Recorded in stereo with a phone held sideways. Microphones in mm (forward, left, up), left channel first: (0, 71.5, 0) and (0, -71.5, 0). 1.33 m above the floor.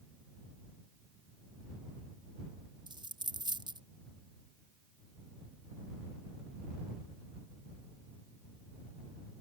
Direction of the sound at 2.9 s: 30° right (ahead or behind).